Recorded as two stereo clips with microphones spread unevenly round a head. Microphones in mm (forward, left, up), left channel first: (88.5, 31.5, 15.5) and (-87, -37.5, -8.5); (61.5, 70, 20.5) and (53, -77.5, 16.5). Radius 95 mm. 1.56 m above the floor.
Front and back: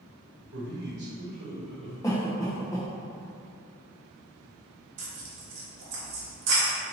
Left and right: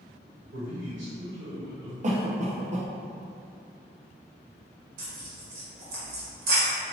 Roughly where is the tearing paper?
Behind right.